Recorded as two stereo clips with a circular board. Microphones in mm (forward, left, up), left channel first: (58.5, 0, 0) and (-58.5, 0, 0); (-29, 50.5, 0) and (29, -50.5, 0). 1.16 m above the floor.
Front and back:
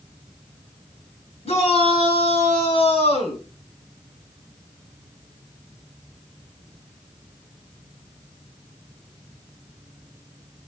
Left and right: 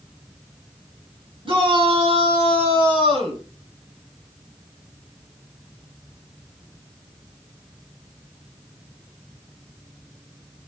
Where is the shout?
20° right, 7 m.